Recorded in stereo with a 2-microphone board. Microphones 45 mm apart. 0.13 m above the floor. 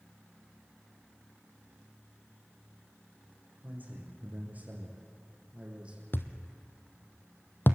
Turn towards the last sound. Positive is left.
turn(degrees=50)  # may be behind; listen again after turning